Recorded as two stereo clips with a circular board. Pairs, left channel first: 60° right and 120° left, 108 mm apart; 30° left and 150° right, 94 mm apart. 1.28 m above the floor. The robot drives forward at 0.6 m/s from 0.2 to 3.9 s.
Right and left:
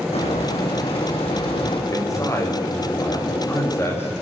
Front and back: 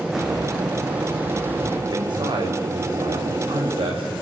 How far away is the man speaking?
About 6 m.